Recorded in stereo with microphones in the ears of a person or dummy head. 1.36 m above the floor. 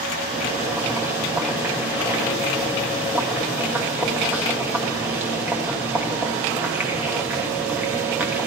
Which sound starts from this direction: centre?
Boiling, at 0.3 s.